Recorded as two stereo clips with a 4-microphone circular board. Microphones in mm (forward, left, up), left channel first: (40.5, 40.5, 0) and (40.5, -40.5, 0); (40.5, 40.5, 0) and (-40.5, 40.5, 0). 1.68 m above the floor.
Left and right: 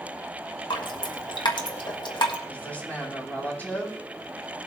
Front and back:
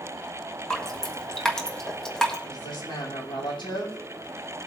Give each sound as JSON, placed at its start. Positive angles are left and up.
{"t": 0.7, "sound": "dripping", "azimuth_deg": 85, "distance_m": 1.5}
{"t": 2.5, "sound": "a woman speaking", "azimuth_deg": 20, "distance_m": 4.5}